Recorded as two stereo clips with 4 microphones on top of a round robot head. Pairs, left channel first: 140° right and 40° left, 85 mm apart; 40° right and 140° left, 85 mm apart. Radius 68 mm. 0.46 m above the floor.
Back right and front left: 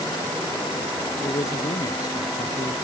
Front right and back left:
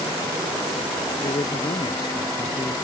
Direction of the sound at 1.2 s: 90° right.